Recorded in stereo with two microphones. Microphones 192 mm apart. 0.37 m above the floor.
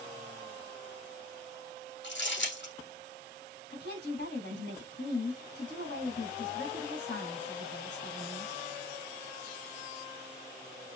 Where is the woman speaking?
65° left (ahead or behind), 3 m.